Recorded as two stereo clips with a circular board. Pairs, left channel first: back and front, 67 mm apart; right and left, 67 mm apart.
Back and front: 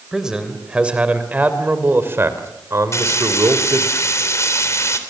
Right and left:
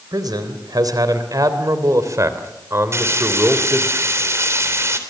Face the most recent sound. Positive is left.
turn(degrees=135)